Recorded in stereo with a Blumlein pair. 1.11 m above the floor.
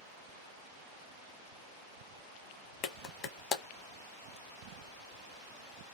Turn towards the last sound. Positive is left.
turn(degrees=30)